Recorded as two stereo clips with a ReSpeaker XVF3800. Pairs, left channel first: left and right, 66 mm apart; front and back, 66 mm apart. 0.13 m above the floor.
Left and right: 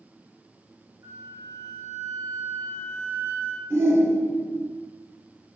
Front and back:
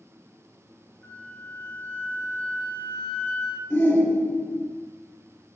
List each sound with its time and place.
1.0 s a flute: 60° right, 0.8 m
3.7 s a shout: 55° right, 2 m